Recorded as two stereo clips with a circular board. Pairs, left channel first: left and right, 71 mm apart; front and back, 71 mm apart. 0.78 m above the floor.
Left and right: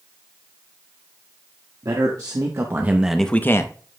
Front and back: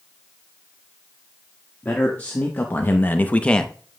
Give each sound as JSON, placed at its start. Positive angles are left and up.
{"t": 1.8, "sound": "a man speaking", "azimuth_deg": -65, "distance_m": 1.5}